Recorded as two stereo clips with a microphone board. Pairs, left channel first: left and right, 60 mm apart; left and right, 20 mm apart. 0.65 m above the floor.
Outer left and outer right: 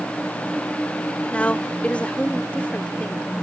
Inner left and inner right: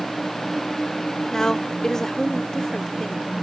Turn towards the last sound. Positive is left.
turn(degrees=20)  # may be behind; listen again after turning